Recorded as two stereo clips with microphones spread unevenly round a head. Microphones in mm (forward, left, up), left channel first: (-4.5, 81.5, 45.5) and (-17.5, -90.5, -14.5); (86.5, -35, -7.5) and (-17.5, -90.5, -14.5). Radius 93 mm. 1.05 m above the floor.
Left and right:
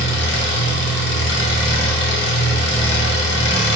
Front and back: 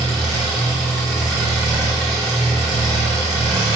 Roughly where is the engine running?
Behind left.